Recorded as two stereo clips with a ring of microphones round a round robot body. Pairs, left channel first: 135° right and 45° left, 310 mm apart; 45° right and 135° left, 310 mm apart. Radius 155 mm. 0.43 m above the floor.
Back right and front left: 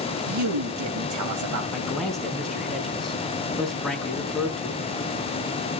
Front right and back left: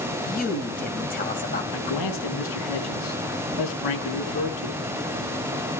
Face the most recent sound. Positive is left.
turn(degrees=-45)